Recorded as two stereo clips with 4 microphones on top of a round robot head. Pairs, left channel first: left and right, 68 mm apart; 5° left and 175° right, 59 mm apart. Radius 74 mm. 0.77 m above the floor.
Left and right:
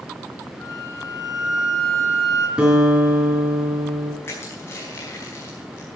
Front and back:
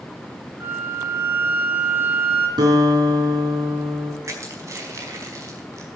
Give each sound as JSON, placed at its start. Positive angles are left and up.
{"t": 0.6, "sound": "a flute", "azimuth_deg": 130, "distance_m": 2.5}
{"t": 2.6, "sound": "a guitar", "azimuth_deg": -170, "distance_m": 4.0}
{"t": 4.2, "sound": "crushing", "azimuth_deg": 150, "distance_m": 4.5}